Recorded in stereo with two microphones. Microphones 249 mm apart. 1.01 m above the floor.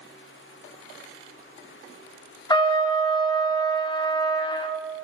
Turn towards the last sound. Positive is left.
turn(degrees=20)  # may be behind; listen again after turning